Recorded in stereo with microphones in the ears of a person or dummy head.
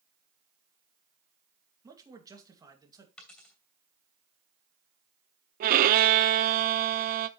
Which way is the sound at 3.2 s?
5° left (ahead or behind).